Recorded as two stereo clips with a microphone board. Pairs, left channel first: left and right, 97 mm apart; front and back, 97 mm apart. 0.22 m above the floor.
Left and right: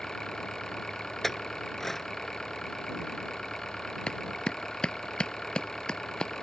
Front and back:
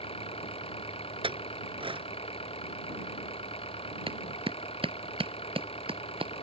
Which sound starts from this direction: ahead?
An engine running, at 0.0 s.